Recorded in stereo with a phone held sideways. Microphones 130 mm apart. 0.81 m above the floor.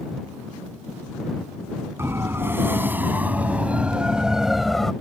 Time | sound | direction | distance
2.0 | a siren | 20° right (ahead or behind) | ?